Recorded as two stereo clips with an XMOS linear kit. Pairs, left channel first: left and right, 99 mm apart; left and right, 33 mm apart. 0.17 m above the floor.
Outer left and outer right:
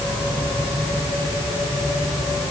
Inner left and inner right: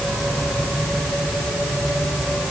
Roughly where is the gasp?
No gasp in this recording.